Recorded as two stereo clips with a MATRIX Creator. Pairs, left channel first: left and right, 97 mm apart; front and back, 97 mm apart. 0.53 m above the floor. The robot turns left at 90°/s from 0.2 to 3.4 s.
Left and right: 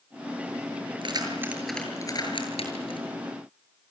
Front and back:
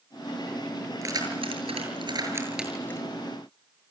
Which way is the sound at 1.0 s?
120° right.